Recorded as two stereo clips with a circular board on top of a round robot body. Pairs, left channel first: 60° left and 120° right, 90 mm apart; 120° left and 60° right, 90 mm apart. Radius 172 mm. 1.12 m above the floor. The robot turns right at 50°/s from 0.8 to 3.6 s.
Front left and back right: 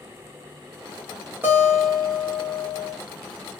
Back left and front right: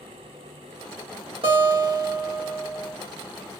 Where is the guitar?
55° right, 1.3 m; by 3.0 s 20° left, 1.3 m.